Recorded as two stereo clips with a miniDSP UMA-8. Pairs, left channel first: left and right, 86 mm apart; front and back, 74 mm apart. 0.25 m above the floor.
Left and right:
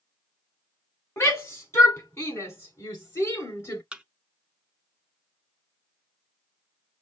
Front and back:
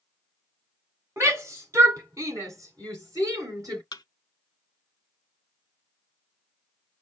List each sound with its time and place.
1.2 s a shout: 140° left, 2 m; by 3.8 s 145° left, 3 m
3.9 s a thud: 10° right, 0.5 m